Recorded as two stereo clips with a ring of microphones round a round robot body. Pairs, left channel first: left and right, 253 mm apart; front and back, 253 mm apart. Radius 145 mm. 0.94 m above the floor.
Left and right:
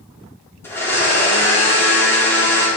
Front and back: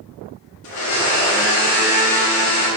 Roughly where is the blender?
Ahead.